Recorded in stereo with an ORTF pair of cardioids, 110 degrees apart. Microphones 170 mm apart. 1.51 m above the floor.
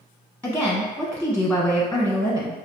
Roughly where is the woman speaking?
Ahead.